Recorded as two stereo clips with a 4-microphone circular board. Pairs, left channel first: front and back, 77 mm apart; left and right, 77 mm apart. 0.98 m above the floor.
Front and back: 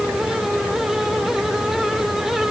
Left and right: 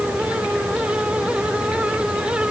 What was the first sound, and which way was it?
Only background noise.